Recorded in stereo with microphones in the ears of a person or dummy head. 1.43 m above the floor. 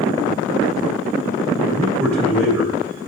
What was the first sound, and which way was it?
A man speaking, 10° left (ahead or behind).